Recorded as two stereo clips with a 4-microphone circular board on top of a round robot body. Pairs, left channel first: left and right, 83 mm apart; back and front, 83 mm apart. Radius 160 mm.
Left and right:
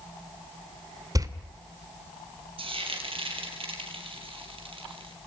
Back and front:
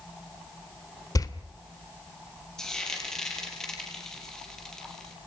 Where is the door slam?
135° right, 2.5 m.